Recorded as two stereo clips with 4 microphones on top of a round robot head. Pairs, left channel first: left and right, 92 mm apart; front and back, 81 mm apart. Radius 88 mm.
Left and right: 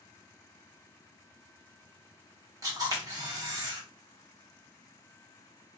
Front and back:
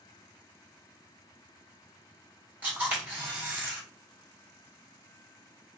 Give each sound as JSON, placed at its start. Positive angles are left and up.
{"t": 2.6, "sound": "a camera shutter", "azimuth_deg": -115, "distance_m": 1.8}